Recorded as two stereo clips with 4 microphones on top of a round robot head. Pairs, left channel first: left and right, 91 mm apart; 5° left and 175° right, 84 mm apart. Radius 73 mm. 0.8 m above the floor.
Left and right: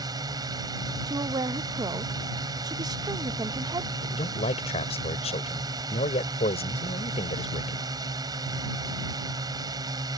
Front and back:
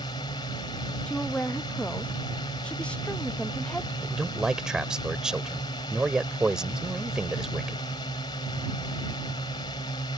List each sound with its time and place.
0.0 s a drone: 45° right
1.1 s a woman speaking: 70° right
4.0 s a man speaking: 100° left